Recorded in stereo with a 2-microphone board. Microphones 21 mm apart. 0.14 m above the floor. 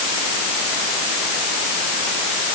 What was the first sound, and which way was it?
Only background noise.